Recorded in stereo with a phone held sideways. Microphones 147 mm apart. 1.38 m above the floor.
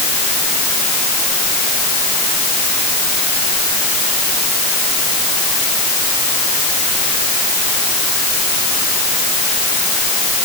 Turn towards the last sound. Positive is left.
No sound to turn to.